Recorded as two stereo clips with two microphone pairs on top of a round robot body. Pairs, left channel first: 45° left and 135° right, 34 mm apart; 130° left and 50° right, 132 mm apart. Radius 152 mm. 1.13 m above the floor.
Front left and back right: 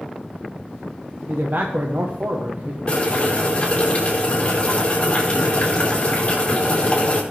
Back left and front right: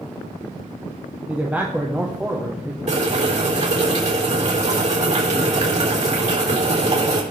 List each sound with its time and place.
1.3 s a man speaking: 130° right, 1.4 m
2.9 s boiling: 15° right, 4 m